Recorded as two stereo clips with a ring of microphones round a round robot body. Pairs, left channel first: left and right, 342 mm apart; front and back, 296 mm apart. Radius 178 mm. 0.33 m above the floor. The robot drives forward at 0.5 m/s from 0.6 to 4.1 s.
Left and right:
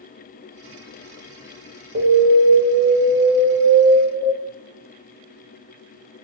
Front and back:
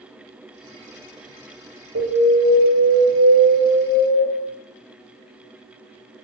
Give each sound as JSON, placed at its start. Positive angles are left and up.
{"t": 1.9, "sound": "an alarm", "azimuth_deg": -140, "distance_m": 1.6}